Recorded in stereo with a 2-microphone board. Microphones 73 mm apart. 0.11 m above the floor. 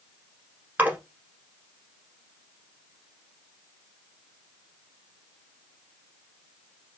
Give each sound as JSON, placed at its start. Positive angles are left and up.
{"t": 0.8, "sound": "a splash", "side_deg": -20, "distance_m": 1.1}